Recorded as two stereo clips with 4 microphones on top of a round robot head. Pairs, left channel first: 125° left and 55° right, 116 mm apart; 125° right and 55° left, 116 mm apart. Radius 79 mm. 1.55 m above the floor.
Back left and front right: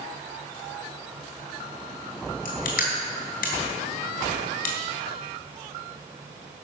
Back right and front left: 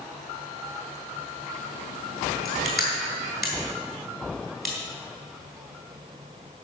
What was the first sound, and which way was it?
Crushing, 140° left.